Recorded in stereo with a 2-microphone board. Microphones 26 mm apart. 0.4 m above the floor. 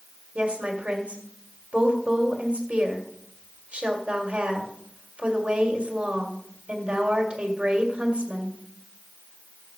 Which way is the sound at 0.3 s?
50° right (ahead or behind).